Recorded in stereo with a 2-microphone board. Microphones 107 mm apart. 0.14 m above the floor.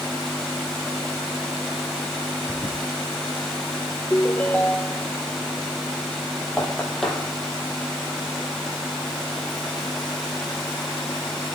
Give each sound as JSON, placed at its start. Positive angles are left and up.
{"t": 2.5, "sound": "a toilet flushing", "side_deg": 5, "distance_m": 5.5}
{"t": 4.1, "sound": "a ringtone", "side_deg": 15, "distance_m": 1.4}
{"t": 6.6, "sound": "knocking", "side_deg": 5, "distance_m": 4.5}